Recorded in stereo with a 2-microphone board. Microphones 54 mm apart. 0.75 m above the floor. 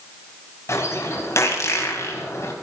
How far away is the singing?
I don't hear singing.